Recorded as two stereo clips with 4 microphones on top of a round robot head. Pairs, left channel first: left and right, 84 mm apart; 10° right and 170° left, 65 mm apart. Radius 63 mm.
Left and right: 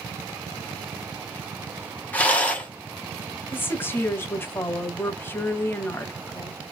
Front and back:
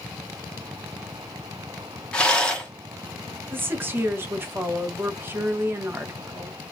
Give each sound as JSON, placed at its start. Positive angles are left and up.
{"t": 2.1, "sound": "a rattle", "azimuth_deg": 45, "distance_m": 1.3}
{"t": 3.5, "sound": "a woman speaking", "azimuth_deg": 140, "distance_m": 1.1}